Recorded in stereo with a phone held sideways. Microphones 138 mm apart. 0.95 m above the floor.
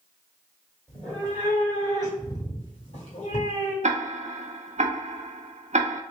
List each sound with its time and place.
0.9 s a cat meowing: 5° left (ahead or behind), 1.7 m; by 3.7 s 65° left (ahead or behind), 1.7 m
3.8 s ticking: 60° right (ahead or behind), 0.5 m